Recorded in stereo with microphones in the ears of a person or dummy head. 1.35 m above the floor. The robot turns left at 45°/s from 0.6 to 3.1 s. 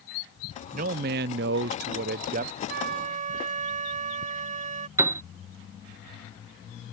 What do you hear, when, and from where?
0.7 s a man speaking: 50° right; by 2.6 s 135° right
2.7 s a flute: 60° right (ahead or behind); by 4.9 s 45° right (ahead or behind)
5.0 s a piano: 10° right (ahead or behind)